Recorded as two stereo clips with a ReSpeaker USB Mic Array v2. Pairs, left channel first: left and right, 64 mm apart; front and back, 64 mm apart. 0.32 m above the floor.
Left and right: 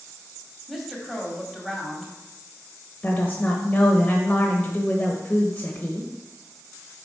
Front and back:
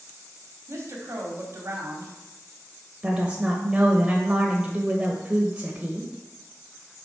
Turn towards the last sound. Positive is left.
turn(degrees=125)